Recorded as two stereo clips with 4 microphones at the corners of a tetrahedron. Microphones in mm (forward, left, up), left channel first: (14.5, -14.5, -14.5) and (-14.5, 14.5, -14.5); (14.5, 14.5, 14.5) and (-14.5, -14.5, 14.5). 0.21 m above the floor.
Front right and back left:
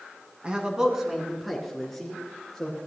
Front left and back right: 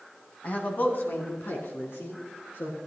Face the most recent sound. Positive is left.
turn(degrees=30)